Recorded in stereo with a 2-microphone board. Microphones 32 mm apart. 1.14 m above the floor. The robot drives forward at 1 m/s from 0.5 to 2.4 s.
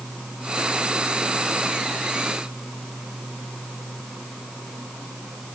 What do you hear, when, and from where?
Only background noise.